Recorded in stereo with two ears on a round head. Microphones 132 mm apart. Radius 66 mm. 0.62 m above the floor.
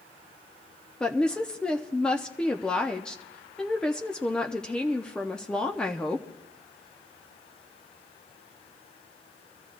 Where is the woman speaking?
5° left (ahead or behind), 0.6 m.